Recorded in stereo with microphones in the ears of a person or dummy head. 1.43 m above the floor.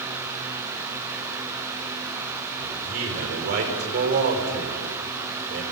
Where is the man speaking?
55° right (ahead or behind), 6 m.